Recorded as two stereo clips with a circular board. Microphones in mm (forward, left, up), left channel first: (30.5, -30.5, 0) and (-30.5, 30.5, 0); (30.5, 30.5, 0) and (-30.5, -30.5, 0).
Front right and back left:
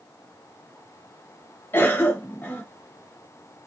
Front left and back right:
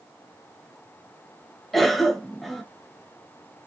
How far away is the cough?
About 0.9 m.